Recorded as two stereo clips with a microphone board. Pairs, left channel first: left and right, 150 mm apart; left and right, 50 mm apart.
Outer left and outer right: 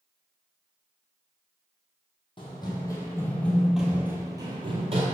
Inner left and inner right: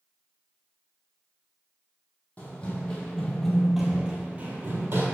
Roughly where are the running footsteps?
Left.